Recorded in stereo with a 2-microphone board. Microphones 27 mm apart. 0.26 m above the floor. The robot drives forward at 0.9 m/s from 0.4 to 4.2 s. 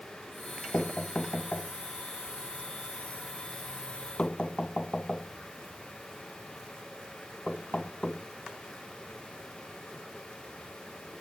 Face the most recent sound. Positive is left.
turn(degrees=40)  # may be behind; listen again after turning